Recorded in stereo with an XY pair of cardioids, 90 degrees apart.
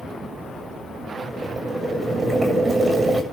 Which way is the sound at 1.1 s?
35° right.